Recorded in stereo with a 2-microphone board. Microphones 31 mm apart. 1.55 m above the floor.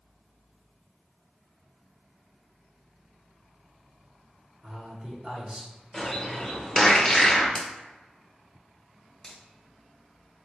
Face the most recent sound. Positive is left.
turn(degrees=10)  # may be behind; listen again after turning